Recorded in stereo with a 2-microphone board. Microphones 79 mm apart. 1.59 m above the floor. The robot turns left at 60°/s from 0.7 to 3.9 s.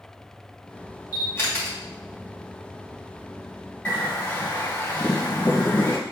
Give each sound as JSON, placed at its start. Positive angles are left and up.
{"t": 1.1, "sound": "a camera shutter", "side_deg": 45, "distance_m": 2.0}
{"t": 3.9, "sound": "a bird", "side_deg": 25, "distance_m": 1.3}